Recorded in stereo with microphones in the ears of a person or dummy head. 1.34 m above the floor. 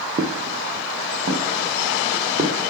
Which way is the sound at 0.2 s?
50° right (ahead or behind).